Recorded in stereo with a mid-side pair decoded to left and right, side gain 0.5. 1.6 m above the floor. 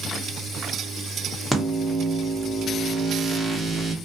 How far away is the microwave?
About 1.1 m.